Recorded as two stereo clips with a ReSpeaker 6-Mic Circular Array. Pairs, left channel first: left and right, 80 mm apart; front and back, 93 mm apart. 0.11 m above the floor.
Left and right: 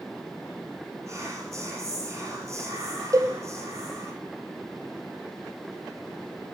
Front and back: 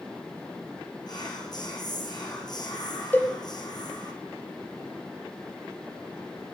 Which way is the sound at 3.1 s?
65° right.